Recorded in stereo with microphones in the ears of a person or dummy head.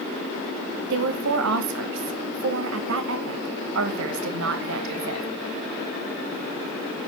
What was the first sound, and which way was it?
A woman speaking, 80° right.